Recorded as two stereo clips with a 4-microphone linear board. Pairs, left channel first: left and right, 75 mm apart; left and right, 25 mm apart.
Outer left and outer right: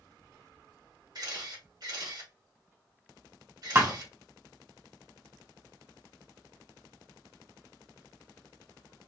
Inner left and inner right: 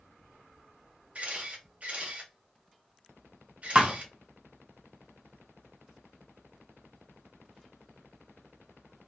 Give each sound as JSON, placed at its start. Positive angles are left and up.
{"t": 1.1, "sound": "a camera shutter", "side_deg": -60, "distance_m": 1.4}
{"t": 3.8, "sound": "a thud", "side_deg": -30, "distance_m": 0.9}